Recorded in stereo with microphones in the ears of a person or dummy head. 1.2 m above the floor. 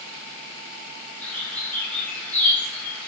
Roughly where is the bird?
Centre.